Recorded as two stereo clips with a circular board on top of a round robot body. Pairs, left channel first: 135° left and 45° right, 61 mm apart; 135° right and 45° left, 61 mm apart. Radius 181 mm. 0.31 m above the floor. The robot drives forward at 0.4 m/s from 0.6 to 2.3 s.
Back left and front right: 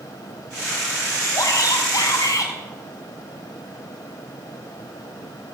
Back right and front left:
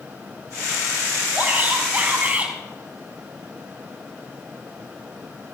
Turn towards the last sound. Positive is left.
turn(degrees=115)